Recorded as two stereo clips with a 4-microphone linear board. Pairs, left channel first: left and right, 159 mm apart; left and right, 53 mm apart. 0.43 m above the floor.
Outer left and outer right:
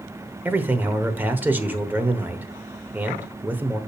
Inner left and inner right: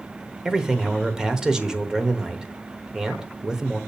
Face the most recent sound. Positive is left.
turn(degrees=-10)  # may be behind; listen again after turning